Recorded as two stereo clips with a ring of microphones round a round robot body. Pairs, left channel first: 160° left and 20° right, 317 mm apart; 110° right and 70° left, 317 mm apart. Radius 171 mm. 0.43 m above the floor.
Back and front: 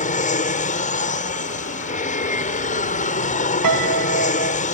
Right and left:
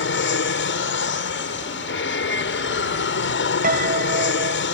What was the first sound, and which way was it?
An aircraft, 145° right.